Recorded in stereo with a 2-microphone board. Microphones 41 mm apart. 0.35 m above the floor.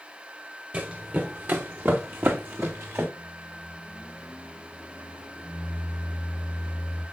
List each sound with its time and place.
0.7 s running footsteps: 40° right (ahead or behind), 1.6 m; by 3.1 s 80° right, 2.5 m
3.2 s a microwave: 30° right (ahead or behind), 3.5 m